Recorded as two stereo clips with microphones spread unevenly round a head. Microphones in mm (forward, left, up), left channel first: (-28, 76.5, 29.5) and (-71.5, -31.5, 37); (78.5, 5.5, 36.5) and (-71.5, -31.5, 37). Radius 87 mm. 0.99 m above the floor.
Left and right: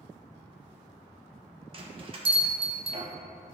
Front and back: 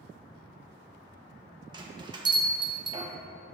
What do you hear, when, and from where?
1.7 s a bell: 115° right, 1.0 m